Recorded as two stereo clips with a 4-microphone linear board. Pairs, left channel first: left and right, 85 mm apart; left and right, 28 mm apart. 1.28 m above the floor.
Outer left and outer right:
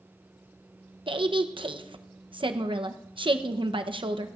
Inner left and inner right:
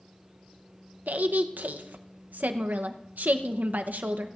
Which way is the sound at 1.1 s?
80° right.